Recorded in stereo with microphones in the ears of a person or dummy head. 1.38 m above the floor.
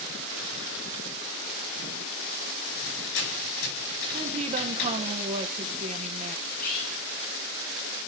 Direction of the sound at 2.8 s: 75° left (ahead or behind).